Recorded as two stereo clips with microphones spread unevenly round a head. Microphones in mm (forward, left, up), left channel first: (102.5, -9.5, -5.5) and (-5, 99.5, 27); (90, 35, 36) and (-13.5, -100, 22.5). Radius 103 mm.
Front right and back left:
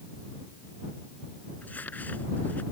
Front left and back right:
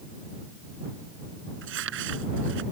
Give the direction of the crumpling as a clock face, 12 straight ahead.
4 o'clock.